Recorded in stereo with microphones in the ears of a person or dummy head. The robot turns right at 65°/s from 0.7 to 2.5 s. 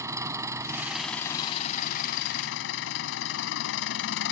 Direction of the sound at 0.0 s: 20° right.